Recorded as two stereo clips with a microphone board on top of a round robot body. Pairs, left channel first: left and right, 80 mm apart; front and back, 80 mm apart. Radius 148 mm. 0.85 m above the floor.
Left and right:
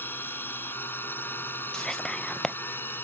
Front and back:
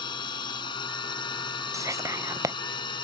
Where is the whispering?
170° left.